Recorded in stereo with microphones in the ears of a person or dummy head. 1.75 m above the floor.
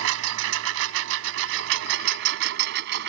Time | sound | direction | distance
0.0 | a lawn mower | 75° right (ahead or behind) | ?